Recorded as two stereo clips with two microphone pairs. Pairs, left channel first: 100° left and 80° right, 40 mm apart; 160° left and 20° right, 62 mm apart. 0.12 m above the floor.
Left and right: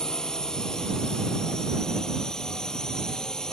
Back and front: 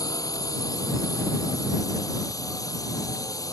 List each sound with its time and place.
0.0 s a drone: 170° left